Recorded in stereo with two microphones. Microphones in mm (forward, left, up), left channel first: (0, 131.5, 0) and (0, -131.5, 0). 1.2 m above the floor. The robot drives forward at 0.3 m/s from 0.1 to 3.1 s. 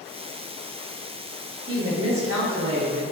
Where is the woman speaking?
55° right (ahead or behind), 1.3 m; by 3.0 s 75° right (ahead or behind), 1.1 m.